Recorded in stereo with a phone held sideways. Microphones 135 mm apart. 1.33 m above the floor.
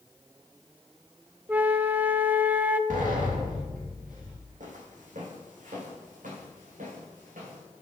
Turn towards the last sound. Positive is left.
turn(degrees=-80)